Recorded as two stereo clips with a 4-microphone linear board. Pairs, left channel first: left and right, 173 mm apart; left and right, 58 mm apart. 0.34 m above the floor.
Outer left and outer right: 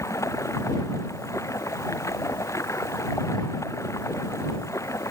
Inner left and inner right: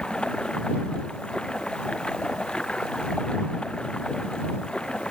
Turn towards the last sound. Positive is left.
turn(degrees=15)  # may be behind; listen again after turning